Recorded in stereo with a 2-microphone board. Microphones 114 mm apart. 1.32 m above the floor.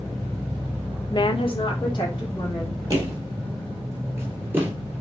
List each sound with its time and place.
1.1 s a woman speaking: 40° left (ahead or behind), 0.5 m; by 2.8 s 35° left (ahead or behind), 2.5 m
2.9 s footsteps: 30° right (ahead or behind), 2 m; by 4.7 s 15° right (ahead or behind), 1.4 m